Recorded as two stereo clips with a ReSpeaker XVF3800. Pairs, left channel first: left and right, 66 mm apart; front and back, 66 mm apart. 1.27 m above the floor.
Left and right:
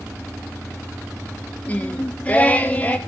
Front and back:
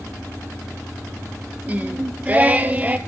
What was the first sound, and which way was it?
Singing, 135° left.